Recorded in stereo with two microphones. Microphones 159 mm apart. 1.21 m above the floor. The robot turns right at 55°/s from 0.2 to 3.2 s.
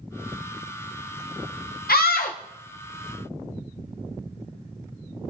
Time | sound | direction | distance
1.9 | a scream | 85° left | 0.5 m